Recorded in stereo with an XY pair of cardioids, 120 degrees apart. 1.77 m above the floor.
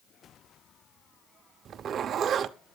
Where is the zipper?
50° right, 0.8 m.